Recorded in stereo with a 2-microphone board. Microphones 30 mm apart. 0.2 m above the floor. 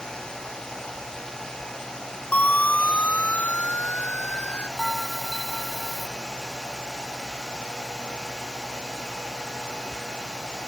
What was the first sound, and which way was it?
A siren, 65° left (ahead or behind).